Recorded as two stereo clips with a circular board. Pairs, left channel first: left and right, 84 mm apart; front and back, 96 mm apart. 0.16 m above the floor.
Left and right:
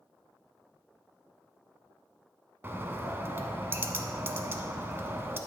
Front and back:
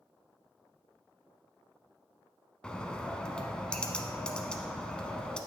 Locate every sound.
2.6 s a bird: 70° right, 0.7 m